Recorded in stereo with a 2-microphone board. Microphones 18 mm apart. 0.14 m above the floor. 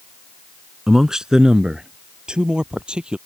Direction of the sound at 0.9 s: 25° right (ahead or behind).